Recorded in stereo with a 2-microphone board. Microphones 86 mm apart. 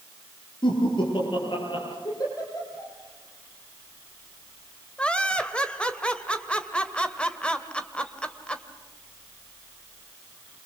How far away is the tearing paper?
No tearing paper in this recording.